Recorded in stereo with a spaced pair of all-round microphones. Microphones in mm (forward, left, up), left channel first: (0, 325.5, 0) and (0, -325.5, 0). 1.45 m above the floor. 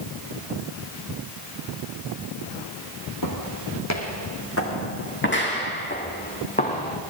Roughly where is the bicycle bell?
I don't hear a bicycle bell.